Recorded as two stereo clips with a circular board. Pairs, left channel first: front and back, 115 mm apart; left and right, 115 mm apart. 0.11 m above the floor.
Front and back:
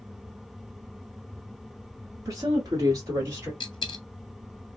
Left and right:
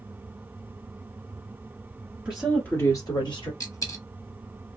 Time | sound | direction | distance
2.2 | a woman speaking | 160° right | 1.4 m
3.6 | a dropped coin | 40° left | 0.8 m